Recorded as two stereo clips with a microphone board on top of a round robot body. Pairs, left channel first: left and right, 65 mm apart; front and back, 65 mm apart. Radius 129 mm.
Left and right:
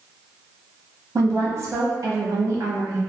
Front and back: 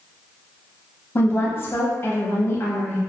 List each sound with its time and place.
1.1 s a woman speaking: 55° right, 0.8 m